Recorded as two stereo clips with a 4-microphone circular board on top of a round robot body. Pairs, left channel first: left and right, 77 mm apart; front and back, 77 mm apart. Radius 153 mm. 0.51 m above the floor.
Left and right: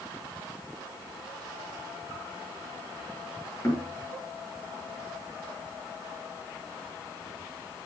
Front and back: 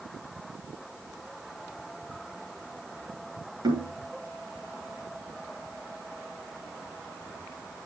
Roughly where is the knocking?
Behind left.